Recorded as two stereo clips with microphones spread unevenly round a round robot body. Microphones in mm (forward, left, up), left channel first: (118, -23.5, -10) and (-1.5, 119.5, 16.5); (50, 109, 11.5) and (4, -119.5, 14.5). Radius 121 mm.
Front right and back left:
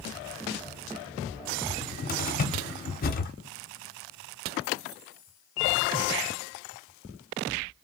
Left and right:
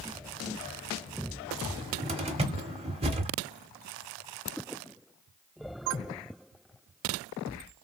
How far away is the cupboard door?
About 0.8 m.